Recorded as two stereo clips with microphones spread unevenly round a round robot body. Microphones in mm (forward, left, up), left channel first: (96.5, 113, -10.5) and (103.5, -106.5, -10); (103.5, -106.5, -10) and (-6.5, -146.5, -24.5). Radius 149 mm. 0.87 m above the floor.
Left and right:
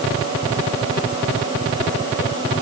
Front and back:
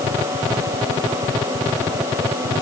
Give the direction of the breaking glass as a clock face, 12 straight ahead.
No breaking glass in this recording.